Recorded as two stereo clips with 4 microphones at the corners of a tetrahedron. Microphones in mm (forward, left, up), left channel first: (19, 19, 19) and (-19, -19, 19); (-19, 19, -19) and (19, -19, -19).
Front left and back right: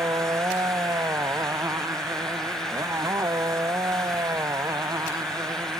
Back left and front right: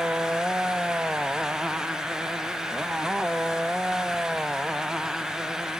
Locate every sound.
0.0 s a motorcycle: 115° right; by 5.8 s 125° right